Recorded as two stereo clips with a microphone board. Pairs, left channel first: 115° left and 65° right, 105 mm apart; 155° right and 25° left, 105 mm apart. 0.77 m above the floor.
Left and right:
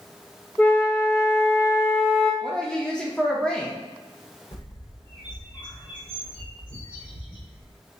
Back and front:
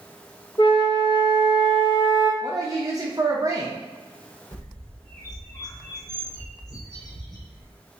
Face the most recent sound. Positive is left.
turn(degrees=150)